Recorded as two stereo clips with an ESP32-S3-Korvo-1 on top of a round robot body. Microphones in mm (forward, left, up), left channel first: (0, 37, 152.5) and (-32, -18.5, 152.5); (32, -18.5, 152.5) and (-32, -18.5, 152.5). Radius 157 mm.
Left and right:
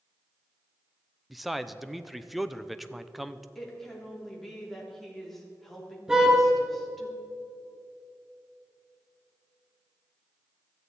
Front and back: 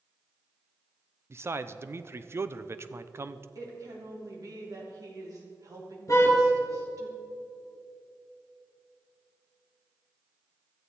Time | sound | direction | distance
1.3 | a man speaking | 150° left | 0.8 m
3.5 | a woman speaking | 145° left | 3 m
6.1 | a car horn | 40° right | 3.5 m